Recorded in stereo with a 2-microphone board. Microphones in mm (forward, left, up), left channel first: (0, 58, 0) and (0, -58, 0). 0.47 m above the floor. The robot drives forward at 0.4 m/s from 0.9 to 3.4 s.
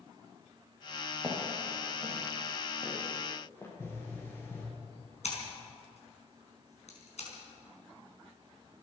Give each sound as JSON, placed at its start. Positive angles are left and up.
{"t": 1.2, "sound": "footsteps", "side_deg": 20, "distance_m": 7.0}
{"t": 3.8, "sound": "a pop", "side_deg": 20, "distance_m": 5.5}
{"t": 5.2, "sound": "scissors", "side_deg": 65, "distance_m": 4.5}